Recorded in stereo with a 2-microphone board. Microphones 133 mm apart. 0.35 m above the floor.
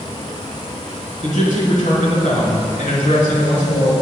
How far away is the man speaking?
About 5 m.